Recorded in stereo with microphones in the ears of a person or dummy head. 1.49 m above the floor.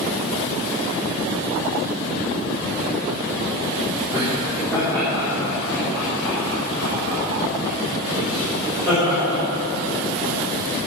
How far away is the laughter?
About 3.5 m.